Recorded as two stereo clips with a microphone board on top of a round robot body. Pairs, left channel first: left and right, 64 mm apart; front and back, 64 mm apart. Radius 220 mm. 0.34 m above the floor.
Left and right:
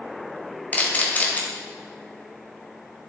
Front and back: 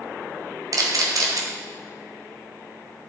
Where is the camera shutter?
155° left, 1.6 m.